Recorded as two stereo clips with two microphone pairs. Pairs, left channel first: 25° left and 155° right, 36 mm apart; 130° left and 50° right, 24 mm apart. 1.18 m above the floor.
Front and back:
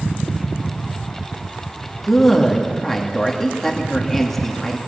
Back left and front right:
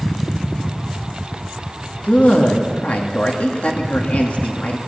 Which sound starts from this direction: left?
A man speaking, at 2.0 s.